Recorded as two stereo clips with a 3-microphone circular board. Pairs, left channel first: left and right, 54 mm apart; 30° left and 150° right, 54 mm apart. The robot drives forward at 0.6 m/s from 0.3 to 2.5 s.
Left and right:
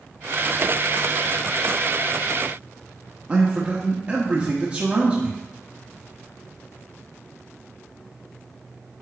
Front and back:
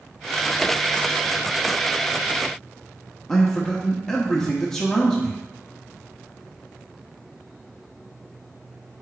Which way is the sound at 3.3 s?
45° right.